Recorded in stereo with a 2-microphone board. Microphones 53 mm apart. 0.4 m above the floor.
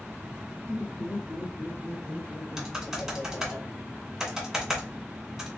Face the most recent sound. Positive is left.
turn(degrees=-5)  # may be behind; listen again after turning